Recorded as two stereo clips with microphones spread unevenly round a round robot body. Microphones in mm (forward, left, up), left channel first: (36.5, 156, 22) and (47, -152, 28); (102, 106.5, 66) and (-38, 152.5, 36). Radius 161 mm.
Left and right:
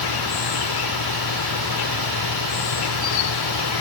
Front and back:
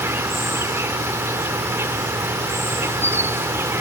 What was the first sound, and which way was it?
An insect, 85° left.